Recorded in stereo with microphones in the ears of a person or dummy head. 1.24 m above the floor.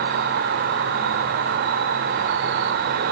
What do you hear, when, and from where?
0.0 s an insect: 45° right (ahead or behind), 1.1 m